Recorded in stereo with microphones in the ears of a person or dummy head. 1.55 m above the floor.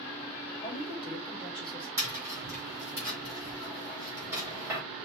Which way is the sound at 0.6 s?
5° right (ahead or behind).